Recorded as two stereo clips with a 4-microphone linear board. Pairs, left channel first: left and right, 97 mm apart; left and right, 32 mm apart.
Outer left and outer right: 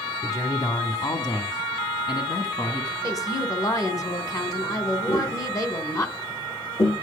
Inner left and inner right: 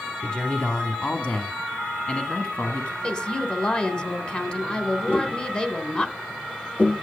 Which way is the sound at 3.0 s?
35° left (ahead or behind).